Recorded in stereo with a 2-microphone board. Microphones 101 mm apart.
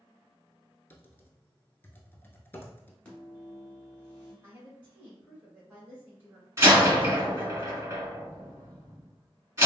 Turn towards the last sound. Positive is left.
turn(degrees=-30)  # may be behind; listen again after turning